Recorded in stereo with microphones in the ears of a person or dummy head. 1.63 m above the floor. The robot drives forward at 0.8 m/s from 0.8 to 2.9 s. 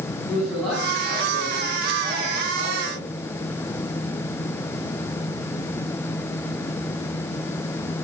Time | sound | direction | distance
0.3 | a man speaking | 5° left (ahead or behind) | 4.5 m